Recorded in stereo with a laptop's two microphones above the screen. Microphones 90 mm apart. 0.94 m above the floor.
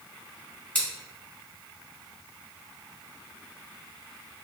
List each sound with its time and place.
0.8 s scissors: 15° left (ahead or behind), 1.8 m